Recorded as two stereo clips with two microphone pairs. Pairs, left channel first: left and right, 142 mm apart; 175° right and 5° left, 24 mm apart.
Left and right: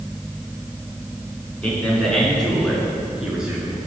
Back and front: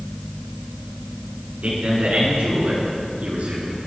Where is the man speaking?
10° left, 4 m; by 3.8 s 10° right, 5 m.